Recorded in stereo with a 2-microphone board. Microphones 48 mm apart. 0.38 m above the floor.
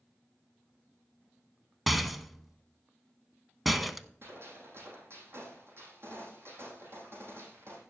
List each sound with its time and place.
1.9 s a rattle: centre (ahead or behind), 0.7 m
4.2 s a gunshot: 55° right (ahead or behind), 4.5 m